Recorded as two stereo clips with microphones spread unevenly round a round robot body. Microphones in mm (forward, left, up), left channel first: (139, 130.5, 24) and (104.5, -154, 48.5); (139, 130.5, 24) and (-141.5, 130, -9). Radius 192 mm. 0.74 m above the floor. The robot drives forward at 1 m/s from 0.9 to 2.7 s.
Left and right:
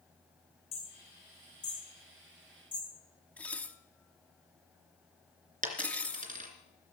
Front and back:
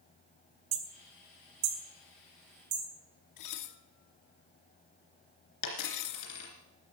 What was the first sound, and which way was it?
Hammering, 155° left.